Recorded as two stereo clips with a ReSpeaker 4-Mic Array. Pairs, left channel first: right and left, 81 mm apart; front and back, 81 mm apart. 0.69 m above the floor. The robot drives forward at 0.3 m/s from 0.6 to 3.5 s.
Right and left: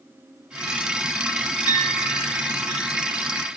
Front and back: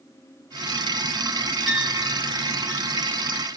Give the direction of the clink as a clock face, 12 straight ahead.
9 o'clock.